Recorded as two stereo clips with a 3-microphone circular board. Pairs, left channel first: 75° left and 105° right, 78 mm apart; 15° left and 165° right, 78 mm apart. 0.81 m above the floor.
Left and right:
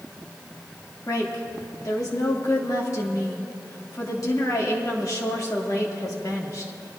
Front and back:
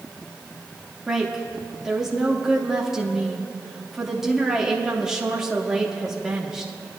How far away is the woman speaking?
About 1.7 m.